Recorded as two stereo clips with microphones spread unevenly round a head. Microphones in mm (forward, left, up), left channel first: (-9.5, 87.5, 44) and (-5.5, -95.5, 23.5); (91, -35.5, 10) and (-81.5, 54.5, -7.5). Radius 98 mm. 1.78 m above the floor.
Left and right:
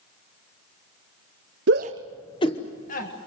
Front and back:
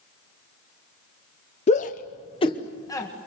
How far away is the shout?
About 0.7 m.